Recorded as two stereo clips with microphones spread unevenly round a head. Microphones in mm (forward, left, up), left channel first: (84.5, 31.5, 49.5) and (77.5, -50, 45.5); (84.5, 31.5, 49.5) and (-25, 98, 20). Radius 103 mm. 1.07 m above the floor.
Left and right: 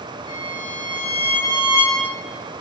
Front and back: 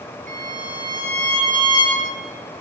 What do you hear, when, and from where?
0.3 s a violin: 125° left, 9 m